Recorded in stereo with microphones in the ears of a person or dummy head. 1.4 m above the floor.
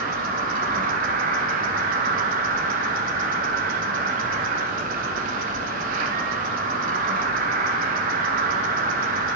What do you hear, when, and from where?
0.0 s an insect: 45° right (ahead or behind), 1.8 m